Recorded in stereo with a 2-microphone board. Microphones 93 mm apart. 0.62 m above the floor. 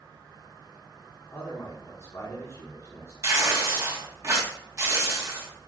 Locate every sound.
1.3 s a man speaking: 35° left (ahead or behind), 1.3 m
3.2 s tearing paper: 30° right (ahead or behind), 1.2 m